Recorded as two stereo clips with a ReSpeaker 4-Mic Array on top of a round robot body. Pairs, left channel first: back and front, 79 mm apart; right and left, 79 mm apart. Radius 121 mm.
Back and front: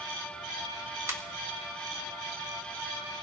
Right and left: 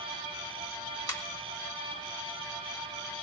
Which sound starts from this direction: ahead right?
A ringtone, at 1.1 s.